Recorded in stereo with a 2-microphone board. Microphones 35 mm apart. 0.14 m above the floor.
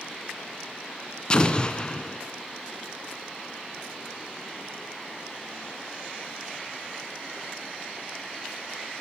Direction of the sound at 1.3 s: 25° left (ahead or behind).